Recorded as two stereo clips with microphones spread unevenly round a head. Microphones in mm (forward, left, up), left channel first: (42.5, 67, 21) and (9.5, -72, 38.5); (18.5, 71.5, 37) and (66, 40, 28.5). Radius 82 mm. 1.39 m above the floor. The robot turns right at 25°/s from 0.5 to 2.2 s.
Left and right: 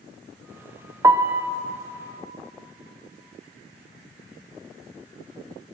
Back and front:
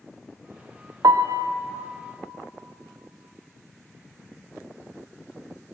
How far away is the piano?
About 0.6 m.